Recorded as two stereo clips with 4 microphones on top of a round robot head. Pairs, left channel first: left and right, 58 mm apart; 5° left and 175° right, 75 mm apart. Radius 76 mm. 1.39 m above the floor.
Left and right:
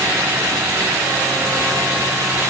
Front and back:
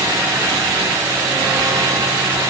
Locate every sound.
Only background noise.